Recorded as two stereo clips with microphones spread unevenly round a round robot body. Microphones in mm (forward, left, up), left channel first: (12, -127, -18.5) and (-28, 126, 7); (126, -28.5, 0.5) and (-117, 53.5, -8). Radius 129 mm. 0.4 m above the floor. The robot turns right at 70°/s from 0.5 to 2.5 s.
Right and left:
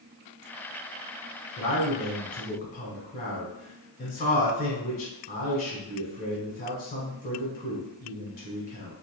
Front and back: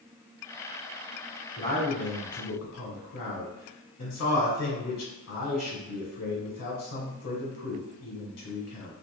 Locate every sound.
1.6 s a man speaking: 95° right, 1.1 m; by 8.9 s 30° right, 1.1 m